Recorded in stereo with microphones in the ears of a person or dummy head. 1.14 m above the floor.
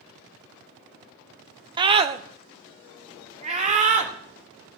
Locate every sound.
1.8 s a scream: 20° right (ahead or behind), 0.6 m; by 4.8 s 35° right (ahead or behind), 2.5 m